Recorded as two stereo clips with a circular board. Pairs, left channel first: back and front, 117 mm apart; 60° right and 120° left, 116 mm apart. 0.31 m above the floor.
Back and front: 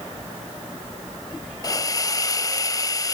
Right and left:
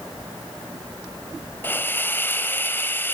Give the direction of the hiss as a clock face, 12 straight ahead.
4 o'clock.